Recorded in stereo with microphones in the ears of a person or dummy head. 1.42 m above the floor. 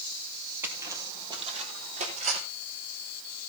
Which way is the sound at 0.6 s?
10° right (ahead or behind).